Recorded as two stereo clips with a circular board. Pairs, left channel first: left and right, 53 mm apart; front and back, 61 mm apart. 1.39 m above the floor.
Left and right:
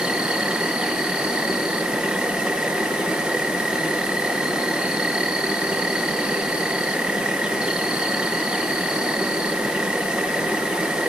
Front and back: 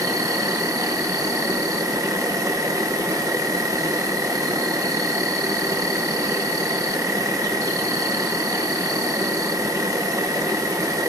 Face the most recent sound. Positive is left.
turn(degrees=-160)